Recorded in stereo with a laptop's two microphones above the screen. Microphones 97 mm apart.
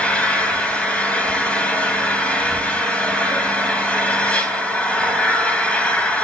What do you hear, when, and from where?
0.0 s an engine running: 10° left (ahead or behind), 3.5 m